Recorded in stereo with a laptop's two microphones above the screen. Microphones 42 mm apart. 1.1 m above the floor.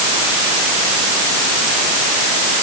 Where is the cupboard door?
I don't hear a cupboard door.